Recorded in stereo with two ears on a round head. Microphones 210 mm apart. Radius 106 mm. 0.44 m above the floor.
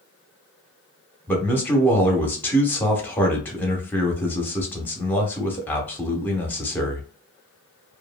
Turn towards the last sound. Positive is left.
turn(degrees=10)  # may be behind; listen again after turning